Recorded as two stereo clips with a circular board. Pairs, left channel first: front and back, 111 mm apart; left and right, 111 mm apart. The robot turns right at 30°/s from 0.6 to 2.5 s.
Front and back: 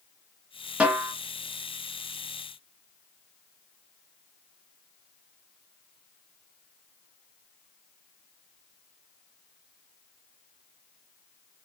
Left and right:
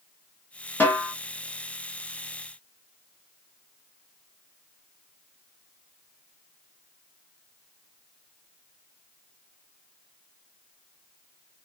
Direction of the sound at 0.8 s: 125° left.